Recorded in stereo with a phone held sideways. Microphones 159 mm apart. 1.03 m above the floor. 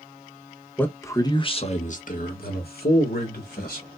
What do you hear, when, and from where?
0.8 s a man speaking: 10° left (ahead or behind), 0.8 m; by 3.9 s 75° left (ahead or behind), 1.6 m